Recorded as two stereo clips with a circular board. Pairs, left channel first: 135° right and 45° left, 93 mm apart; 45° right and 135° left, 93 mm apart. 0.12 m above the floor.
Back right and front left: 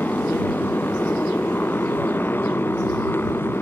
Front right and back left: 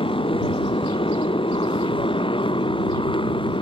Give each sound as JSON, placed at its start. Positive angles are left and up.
{"t": 0.0, "sound": "a motorcycle", "azimuth_deg": -65}